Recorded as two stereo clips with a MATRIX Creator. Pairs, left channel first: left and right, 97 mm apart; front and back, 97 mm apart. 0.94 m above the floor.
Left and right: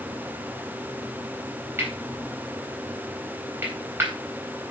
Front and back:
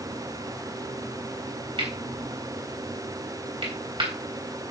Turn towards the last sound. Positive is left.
turn(degrees=-155)